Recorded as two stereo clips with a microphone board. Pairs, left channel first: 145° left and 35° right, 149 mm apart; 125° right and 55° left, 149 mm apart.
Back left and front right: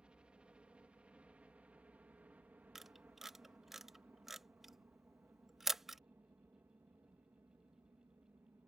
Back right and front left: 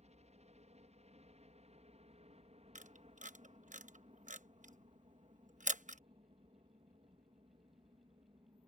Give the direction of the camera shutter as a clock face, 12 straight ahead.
10 o'clock.